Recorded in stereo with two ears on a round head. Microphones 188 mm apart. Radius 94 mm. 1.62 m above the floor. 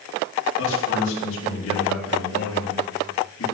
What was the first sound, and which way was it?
A man speaking, 75° left (ahead or behind).